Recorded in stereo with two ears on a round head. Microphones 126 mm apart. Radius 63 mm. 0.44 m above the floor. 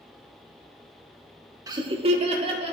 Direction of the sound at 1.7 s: 25° right (ahead or behind).